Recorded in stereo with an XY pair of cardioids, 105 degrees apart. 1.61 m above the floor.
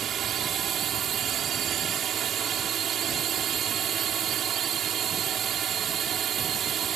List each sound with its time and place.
0.0 s a drone: 60° right